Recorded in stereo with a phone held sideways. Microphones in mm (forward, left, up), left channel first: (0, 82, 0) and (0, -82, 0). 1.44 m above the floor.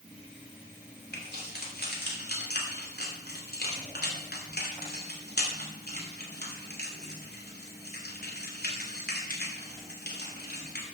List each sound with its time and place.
1.1 s keys jangling: 75° left (ahead or behind), 2.5 m